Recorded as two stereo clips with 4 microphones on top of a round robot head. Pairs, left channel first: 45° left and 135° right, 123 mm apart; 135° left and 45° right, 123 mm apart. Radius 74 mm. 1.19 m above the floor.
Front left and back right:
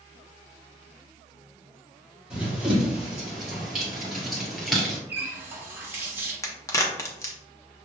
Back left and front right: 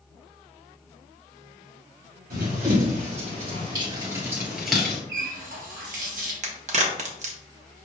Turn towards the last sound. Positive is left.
turn(degrees=-20)